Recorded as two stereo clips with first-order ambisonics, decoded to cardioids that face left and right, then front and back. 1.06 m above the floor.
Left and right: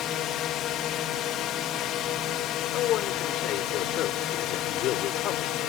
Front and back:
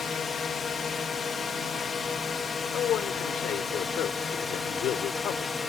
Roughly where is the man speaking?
Ahead left.